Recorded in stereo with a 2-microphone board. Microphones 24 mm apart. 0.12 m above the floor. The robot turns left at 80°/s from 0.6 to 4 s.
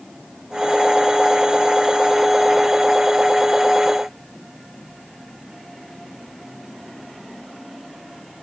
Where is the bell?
No bell in this recording.